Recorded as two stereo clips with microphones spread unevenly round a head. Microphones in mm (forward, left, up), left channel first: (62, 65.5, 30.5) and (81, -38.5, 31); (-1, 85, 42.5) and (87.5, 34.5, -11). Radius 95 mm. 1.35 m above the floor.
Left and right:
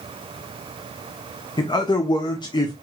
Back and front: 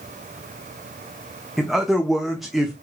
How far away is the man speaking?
About 0.8 m.